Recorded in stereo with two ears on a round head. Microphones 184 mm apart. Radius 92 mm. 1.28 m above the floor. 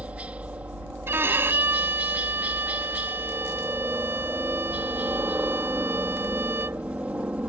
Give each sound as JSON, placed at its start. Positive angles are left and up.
{"t": 0.0, "sound": "a helicopter", "side_deg": -5}
{"t": 1.1, "sound": "a violin", "side_deg": -10}